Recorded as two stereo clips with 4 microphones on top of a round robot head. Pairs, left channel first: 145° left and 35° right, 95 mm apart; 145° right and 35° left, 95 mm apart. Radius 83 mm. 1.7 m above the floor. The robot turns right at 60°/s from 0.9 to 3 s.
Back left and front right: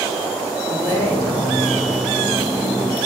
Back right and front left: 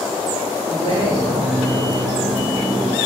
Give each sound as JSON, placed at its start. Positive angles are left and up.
{"t": 0.6, "sound": "a woman speaking", "azimuth_deg": 25, "distance_m": 3.5}